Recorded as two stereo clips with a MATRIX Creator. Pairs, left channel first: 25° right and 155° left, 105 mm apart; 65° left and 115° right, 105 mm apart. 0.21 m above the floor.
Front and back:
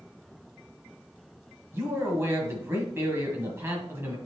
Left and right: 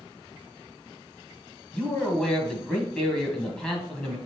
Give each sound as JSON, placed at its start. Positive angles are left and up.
{"t": 1.7, "sound": "a man speaking", "azimuth_deg": 140, "distance_m": 1.4}